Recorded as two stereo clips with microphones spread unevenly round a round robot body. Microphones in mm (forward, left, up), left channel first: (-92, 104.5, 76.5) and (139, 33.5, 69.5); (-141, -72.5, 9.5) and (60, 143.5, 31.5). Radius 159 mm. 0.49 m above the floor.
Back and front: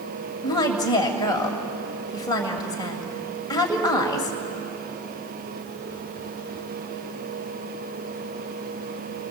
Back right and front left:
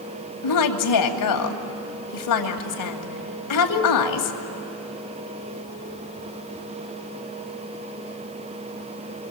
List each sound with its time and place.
0.4 s a woman speaking: 120° right, 2.5 m